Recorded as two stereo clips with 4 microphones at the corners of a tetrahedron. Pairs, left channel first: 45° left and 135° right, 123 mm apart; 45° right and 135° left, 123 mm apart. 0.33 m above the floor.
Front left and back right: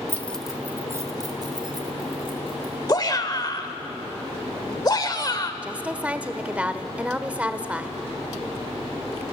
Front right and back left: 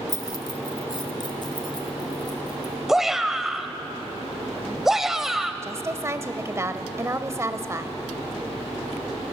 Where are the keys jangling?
10° right, 1.1 m; by 2.7 s 100° right, 3.5 m.